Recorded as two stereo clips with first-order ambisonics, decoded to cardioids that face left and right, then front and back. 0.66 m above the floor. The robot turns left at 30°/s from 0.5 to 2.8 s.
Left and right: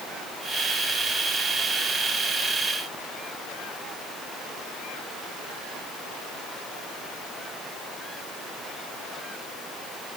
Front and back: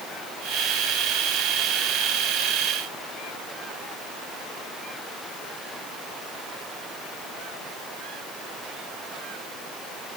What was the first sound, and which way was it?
Only background noise.